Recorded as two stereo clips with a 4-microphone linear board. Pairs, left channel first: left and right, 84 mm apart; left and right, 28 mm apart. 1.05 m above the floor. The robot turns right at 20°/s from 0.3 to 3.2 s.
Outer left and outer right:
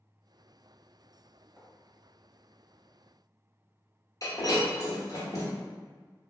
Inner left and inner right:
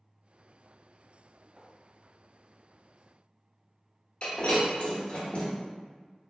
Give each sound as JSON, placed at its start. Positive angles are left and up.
{"t": 1.6, "sound": "writing", "side_deg": -15, "distance_m": 1.1}
{"t": 4.2, "sound": "breaking glass", "side_deg": 45, "distance_m": 0.9}